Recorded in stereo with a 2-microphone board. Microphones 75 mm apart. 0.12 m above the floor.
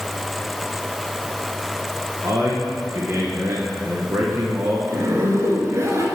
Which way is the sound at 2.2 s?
40° right (ahead or behind).